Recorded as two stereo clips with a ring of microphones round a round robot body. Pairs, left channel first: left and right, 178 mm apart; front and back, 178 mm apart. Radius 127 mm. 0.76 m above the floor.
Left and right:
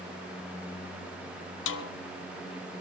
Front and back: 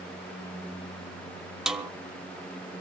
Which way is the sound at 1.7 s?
95° left.